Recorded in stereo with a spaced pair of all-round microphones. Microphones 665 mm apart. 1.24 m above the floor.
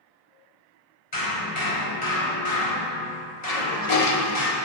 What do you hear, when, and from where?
1.1 s hammering: 70° left (ahead or behind), 4.5 m
3.5 s a toilet flushing: 65° left (ahead or behind), 1.0 m